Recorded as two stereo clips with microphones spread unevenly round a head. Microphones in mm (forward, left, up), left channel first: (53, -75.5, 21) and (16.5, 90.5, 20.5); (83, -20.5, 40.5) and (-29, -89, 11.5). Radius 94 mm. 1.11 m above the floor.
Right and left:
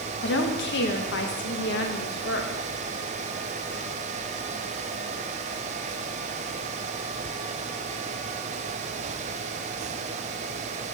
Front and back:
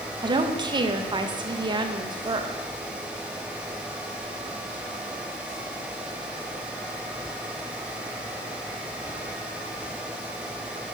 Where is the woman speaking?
95° right, 1.1 m.